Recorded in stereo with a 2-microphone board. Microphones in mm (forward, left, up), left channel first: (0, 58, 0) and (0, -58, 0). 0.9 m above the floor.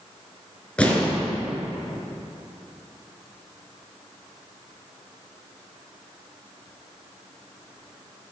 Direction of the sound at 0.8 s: 10° left (ahead or behind).